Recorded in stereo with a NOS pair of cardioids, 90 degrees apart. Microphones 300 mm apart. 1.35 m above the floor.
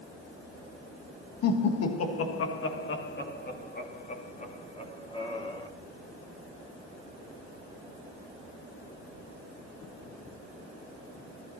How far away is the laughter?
About 1.7 m.